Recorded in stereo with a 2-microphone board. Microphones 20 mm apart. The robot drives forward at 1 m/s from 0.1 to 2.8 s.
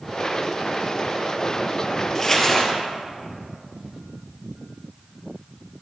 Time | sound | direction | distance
2.1 | crumpling | 10° left (ahead or behind) | 1.7 m